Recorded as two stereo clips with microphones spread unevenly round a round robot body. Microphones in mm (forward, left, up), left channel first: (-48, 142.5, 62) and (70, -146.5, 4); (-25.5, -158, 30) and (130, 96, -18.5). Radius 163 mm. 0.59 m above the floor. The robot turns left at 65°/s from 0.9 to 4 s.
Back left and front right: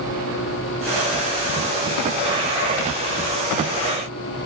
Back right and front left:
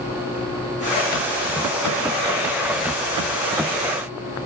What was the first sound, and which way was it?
Only background noise.